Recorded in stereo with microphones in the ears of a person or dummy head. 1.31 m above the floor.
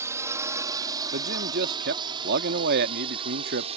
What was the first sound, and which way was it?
A drone, 10° right (ahead or behind).